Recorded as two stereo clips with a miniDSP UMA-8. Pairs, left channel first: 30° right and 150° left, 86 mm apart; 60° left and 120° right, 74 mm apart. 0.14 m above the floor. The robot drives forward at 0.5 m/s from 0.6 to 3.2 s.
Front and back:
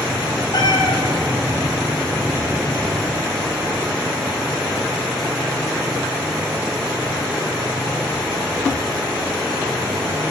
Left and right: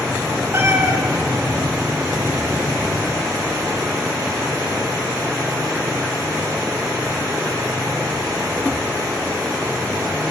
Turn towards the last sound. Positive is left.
turn(degrees=-75)